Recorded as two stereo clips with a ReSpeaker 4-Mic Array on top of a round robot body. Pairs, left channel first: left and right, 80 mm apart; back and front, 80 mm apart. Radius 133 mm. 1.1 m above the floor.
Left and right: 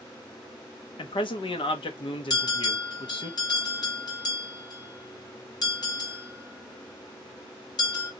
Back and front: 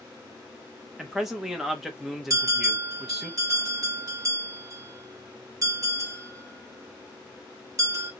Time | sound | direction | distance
1.0 | a man speaking | 85° left | 1.1 m
2.3 | a bell | 55° left | 2 m